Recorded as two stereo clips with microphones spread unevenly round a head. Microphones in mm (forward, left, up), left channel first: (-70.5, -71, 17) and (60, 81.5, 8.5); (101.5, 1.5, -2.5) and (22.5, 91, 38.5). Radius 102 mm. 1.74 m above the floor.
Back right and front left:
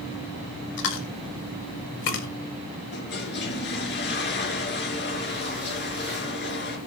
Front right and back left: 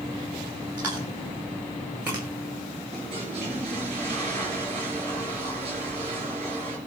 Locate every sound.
0.8 s chewing: 155° right, 2 m
2.9 s a toilet flushing: 170° right, 4.5 m